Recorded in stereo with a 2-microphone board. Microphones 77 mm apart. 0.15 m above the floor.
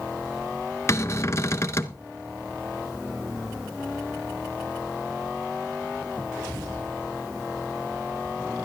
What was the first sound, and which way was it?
A cupboard door, 40° left (ahead or behind).